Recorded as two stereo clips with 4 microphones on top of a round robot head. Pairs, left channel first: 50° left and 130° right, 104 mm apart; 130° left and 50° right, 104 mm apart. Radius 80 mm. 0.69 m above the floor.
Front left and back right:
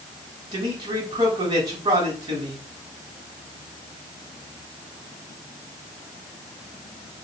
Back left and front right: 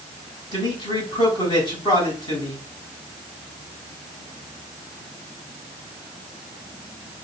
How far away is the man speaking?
About 7 m.